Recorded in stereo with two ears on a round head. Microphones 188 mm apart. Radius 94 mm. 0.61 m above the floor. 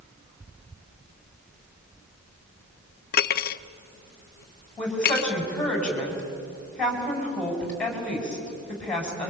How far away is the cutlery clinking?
About 0.6 m.